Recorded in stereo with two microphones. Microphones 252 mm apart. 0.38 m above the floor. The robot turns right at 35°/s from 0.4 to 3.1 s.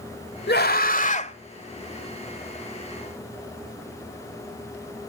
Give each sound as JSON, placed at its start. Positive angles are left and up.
{"t": 0.5, "sound": "a scream", "azimuth_deg": 115, "distance_m": 1.9}